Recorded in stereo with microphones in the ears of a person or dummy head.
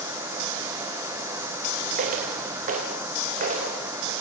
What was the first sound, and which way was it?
Footsteps, 45° right (ahead or behind).